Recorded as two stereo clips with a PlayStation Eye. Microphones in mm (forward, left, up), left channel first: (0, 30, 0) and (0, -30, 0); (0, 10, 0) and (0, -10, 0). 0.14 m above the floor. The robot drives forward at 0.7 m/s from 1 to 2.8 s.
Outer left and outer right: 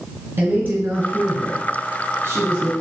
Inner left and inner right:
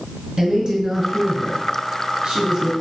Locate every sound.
0.4 s a woman speaking: 35° right (ahead or behind), 1.8 m; by 2.7 s 45° right (ahead or behind), 1.5 m